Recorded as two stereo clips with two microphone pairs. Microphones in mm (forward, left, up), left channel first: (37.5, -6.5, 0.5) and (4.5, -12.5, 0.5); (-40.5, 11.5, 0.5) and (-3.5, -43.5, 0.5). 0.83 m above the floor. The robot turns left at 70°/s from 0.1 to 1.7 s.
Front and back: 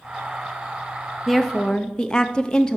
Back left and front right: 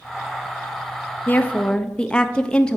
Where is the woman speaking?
90° left, 0.5 m; by 2.8 s 60° left, 0.5 m.